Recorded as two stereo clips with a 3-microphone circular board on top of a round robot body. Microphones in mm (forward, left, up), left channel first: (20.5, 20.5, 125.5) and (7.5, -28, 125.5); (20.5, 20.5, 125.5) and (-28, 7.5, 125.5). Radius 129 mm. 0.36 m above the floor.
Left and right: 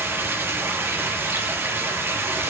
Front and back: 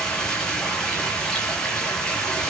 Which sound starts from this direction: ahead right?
Running water, at 0.0 s.